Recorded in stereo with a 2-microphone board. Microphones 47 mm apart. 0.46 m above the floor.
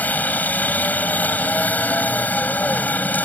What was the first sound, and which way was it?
A helicopter, 40° left (ahead or behind).